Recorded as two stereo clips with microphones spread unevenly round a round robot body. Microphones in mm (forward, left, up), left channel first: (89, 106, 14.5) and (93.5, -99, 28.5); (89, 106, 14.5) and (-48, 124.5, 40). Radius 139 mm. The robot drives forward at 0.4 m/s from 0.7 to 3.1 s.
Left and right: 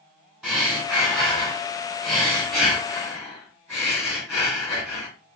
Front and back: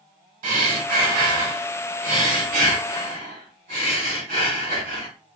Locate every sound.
0.4 s breathing: straight behind, 1.4 m